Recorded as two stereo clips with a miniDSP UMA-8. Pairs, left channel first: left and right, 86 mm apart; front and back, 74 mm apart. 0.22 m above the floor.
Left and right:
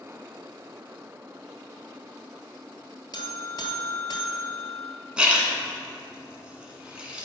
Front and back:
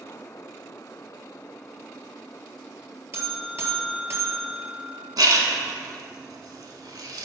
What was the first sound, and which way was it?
A buzzer, 125° left.